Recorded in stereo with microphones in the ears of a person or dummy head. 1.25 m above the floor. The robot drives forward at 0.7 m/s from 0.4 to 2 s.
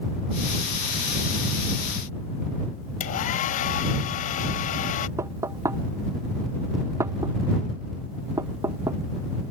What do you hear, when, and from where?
3.0 s a hair dryer: 40° left (ahead or behind)
5.2 s knocking: 20° right (ahead or behind)